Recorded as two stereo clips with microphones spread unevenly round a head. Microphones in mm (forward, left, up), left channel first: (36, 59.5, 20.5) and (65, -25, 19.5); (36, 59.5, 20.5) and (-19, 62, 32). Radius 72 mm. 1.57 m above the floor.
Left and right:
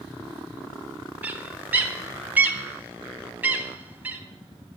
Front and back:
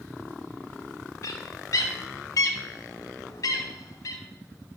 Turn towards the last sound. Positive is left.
turn(degrees=-10)